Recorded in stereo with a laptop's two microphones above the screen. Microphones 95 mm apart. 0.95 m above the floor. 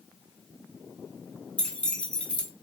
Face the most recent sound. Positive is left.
turn(degrees=10)  # may be behind; listen again after turning